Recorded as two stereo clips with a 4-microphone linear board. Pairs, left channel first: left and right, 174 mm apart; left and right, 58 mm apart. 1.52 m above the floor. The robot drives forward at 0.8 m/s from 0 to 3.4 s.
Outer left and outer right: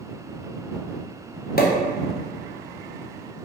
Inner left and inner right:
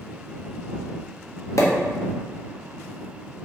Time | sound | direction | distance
1.6 | a pop | 60° left (ahead or behind) | 0.7 m